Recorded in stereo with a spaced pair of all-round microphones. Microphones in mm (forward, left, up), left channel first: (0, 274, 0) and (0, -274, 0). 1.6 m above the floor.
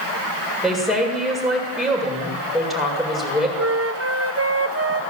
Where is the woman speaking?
Centre (ahead or behind), 7.5 m.